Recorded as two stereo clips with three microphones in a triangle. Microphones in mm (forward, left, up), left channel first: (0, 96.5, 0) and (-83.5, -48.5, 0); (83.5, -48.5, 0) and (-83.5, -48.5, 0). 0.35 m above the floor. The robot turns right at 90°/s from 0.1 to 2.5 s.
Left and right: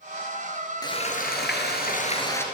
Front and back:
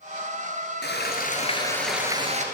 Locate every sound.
0.8 s frying: 5° right, 3 m; by 2.4 s 140° left, 3 m